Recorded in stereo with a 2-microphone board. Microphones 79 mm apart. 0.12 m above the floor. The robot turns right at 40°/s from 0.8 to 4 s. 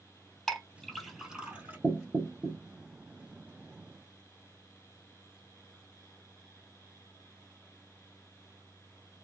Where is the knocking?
20° right (ahead or behind), 0.8 m.